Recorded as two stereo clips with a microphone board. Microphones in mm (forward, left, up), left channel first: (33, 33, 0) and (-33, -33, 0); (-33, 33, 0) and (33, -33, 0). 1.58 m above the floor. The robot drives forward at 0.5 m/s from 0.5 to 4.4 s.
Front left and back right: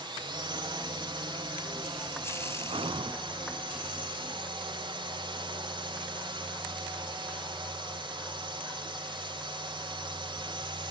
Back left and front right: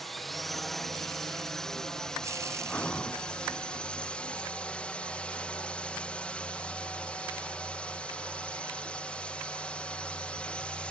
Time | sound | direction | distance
0.0 | a drone | 140° right | ?
2.7 | breathing | 150° right | ?